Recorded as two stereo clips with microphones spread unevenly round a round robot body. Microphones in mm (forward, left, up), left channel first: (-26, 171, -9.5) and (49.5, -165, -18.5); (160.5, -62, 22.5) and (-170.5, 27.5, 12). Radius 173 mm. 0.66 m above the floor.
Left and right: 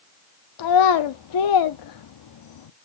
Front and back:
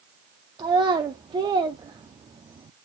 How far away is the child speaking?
About 0.5 m.